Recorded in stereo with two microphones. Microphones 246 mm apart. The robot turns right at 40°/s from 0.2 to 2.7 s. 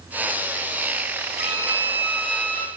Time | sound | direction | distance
1.4 | a violin | 40° right | 1.0 m